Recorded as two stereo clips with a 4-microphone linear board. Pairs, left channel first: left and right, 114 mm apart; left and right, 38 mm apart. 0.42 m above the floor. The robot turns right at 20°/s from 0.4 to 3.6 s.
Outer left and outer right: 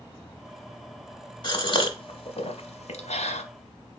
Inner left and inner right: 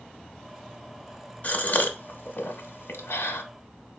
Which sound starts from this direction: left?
A gasp, at 1.4 s.